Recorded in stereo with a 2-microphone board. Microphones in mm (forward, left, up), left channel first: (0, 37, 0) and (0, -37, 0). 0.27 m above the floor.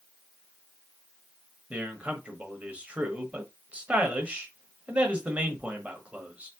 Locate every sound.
1.7 s a man speaking: 20° right (ahead or behind), 0.9 m